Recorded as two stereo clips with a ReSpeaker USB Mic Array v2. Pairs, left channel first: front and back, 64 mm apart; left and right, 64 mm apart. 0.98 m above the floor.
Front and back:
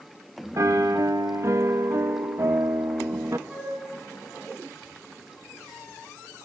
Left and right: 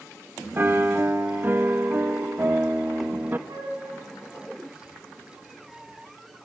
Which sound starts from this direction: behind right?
A piano, at 0.6 s.